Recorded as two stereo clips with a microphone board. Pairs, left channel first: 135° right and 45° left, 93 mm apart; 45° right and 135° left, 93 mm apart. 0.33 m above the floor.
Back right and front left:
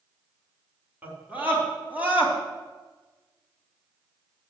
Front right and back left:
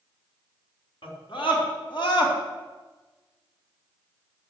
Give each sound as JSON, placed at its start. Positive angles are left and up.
{"t": 1.0, "sound": "a scream", "azimuth_deg": -25, "distance_m": 3.5}